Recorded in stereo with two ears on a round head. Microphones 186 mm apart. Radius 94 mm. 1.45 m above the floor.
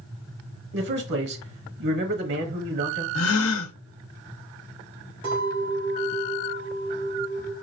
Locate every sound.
0.7 s a man speaking: 55° right (ahead or behind), 1.1 m
3.1 s a gasp: 65° left (ahead or behind), 0.6 m
5.2 s a clink: 25° right (ahead or behind), 3 m